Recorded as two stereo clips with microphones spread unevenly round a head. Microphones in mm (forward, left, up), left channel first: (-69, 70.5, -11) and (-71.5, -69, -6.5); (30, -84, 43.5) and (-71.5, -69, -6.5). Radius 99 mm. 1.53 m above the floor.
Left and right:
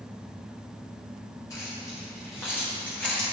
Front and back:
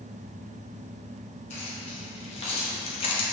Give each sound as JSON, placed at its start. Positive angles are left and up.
{"t": 1.5, "sound": "keys jangling", "azimuth_deg": 15, "distance_m": 2.5}